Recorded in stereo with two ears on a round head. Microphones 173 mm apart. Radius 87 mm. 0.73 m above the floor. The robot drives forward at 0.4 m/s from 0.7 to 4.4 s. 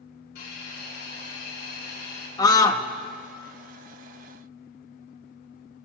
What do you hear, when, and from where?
0.3 s a hiss: 65° left (ahead or behind), 5 m; by 2.3 s 55° left (ahead or behind), 5 m
2.4 s a scream: 20° left (ahead or behind), 1.0 m